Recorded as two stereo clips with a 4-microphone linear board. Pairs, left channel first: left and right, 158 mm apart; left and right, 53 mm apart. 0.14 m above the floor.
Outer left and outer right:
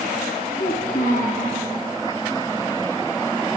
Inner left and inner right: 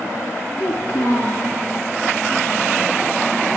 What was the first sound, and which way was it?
A child speaking, 25° left (ahead or behind).